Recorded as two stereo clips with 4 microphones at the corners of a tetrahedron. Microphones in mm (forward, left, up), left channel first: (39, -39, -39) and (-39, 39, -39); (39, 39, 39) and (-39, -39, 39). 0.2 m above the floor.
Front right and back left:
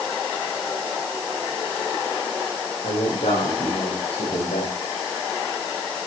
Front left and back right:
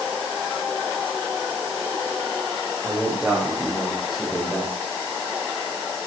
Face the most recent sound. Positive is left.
turn(degrees=-40)